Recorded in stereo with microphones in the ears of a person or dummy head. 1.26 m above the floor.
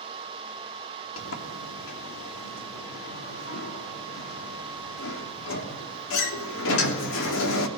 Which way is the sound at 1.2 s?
75° left (ahead or behind).